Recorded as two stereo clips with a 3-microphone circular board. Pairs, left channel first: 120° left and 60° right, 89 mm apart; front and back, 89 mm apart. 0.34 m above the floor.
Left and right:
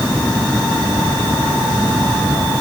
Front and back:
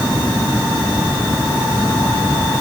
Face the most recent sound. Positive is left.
No sound to turn to.